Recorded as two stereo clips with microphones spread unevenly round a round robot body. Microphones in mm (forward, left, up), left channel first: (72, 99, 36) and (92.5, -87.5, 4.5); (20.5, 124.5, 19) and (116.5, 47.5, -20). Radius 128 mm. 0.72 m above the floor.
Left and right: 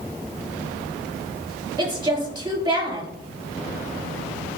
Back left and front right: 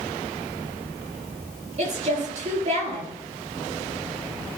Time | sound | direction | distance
1.8 | a woman speaking | 15° right | 5 m